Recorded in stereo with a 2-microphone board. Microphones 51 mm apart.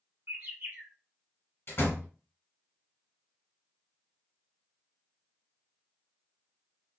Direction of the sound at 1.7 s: 45° left (ahead or behind).